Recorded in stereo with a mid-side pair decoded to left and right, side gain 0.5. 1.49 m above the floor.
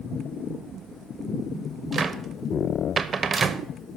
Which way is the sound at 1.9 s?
35° right.